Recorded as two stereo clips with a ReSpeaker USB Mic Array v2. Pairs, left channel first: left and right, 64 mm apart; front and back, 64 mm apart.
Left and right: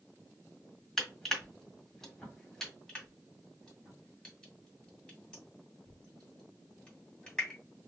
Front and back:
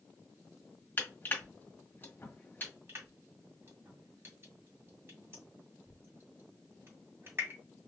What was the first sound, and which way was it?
Crushing, 15° left.